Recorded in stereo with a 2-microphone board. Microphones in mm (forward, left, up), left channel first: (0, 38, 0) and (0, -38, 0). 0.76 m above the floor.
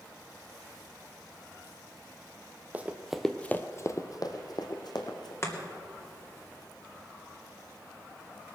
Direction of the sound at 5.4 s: 40° left (ahead or behind).